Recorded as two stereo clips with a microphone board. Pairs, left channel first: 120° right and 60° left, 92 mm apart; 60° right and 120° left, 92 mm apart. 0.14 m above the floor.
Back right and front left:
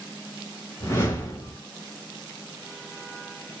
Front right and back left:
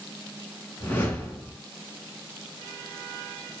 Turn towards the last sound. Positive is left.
turn(degrees=-100)